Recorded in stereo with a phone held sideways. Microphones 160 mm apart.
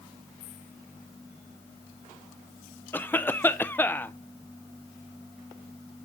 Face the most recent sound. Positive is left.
turn(degrees=10)  # may be behind; listen again after turning